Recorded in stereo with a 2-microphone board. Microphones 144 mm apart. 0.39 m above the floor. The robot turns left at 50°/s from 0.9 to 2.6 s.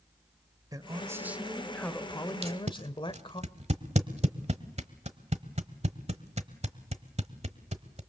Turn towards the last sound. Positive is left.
turn(degrees=-50)  # may be behind; listen again after turning